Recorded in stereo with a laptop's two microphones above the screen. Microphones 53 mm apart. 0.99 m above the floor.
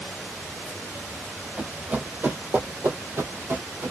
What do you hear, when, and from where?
1.6 s running footsteps: 25° right (ahead or behind), 1.5 m; by 3.9 s 60° right (ahead or behind), 1.9 m